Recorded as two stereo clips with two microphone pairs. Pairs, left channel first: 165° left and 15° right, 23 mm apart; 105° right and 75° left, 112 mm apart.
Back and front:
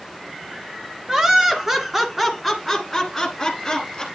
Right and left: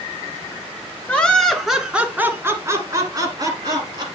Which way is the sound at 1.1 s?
40° right.